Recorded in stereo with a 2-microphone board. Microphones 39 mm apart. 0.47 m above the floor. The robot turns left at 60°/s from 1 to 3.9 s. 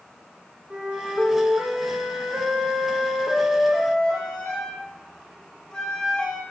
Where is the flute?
25° right, 6 m; by 6.4 s 165° left, 6 m.